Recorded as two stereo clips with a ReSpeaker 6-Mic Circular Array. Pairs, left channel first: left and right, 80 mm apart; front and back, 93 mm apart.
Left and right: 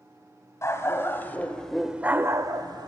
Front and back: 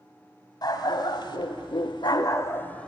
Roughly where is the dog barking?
Ahead left.